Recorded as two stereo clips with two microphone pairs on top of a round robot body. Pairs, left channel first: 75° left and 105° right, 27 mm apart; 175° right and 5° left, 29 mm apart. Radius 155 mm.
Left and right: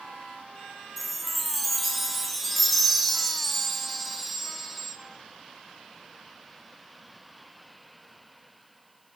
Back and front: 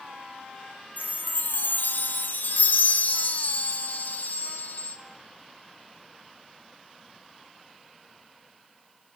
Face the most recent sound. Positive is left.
turn(degrees=160)